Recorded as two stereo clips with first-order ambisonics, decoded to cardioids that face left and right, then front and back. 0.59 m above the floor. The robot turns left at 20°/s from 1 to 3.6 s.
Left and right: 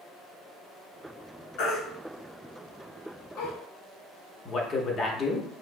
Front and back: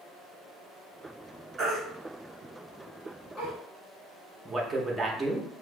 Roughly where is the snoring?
No snoring in this recording.